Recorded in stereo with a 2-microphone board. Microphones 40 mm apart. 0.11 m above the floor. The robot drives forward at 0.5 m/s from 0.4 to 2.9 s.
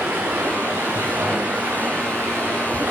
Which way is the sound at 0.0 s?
80° right.